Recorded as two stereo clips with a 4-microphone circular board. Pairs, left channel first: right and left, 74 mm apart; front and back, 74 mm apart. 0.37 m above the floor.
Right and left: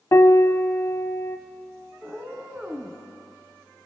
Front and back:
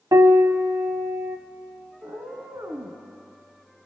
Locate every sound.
0.1 s a piano: 140° right, 0.6 m
2.0 s a cat meowing: 160° left, 1.7 m